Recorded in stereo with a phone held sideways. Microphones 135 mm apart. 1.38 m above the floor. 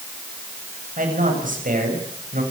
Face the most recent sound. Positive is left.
turn(degrees=-85)